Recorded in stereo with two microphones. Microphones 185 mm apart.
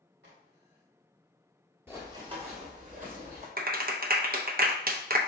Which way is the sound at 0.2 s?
75° right (ahead or behind).